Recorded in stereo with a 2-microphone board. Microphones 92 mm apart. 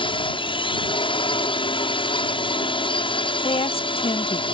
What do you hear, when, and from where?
0.0 s a drone: 65° left (ahead or behind)
3.4 s a woman speaking: 80° left